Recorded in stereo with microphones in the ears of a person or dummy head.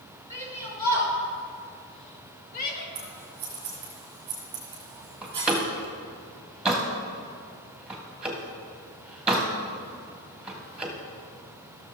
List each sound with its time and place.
0.3 s a shout: 25° left (ahead or behind), 3.5 m; by 2.9 s 55° left (ahead or behind), 2 m
3.0 s scissors: 30° right (ahead or behind), 1.8 m
5.2 s a door slam: 5° left (ahead or behind), 1.5 m